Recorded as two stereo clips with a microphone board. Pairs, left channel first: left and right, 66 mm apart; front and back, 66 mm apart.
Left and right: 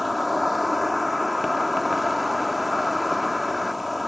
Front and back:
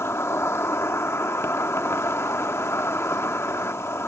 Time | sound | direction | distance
0.0 | an insect | straight ahead | ?